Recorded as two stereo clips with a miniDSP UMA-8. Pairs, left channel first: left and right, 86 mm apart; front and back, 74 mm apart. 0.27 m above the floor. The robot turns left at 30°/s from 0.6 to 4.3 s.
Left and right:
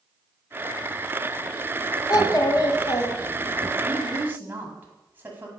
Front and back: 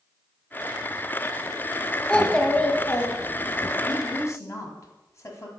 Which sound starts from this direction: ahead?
A woman speaking, at 3.8 s.